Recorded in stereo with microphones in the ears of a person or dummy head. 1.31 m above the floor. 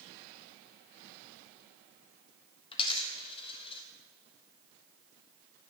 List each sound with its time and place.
2.7 s a dropped coin: 30° left (ahead or behind), 1.5 m